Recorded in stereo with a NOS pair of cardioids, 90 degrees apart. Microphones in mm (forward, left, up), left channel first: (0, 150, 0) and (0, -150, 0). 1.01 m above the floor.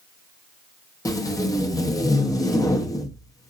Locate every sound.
1.1 s tape being pulled: 10° left, 0.6 m